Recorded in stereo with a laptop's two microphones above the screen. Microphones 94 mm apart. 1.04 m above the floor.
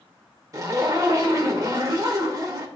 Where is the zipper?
40° right (ahead or behind), 1.1 m.